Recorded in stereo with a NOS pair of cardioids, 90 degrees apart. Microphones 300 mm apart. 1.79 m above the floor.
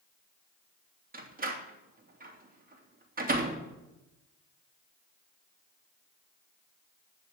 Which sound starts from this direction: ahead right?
A door slam, at 1.1 s.